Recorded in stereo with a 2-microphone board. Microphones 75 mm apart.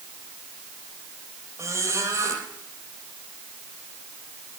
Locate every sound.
1.6 s a squeak: 35° right (ahead or behind), 3.5 m